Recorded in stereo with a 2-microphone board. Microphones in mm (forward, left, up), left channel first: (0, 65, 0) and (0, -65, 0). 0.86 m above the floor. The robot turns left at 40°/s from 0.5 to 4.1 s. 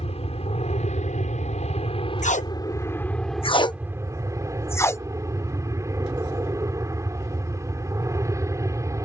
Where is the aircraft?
115° left; by 9.1 s 25° right.